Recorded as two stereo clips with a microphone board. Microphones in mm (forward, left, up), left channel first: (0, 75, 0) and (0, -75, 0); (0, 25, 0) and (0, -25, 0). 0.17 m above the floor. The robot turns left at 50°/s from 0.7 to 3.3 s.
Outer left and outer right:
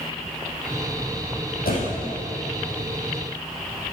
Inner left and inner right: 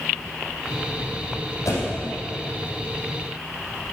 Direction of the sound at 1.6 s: 75° left (ahead or behind).